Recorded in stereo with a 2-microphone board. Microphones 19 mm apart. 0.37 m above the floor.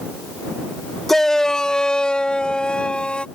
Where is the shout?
15° left (ahead or behind); by 3.2 s 65° left (ahead or behind).